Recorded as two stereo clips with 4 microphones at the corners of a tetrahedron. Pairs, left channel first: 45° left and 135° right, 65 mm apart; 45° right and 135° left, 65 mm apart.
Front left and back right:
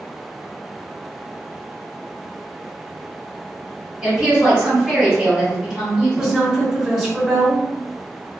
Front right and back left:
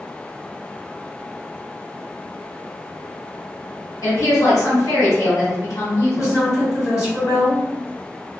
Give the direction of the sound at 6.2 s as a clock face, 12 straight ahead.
2 o'clock.